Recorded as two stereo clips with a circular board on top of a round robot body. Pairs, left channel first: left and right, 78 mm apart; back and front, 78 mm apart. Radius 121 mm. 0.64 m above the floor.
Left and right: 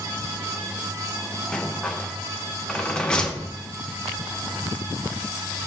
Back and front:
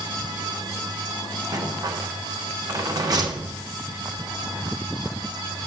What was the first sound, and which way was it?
A rattle, 15° left.